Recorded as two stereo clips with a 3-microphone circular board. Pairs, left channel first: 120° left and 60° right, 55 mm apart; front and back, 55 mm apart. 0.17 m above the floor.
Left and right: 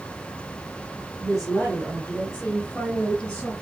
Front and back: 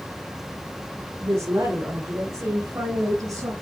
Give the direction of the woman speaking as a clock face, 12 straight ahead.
5 o'clock.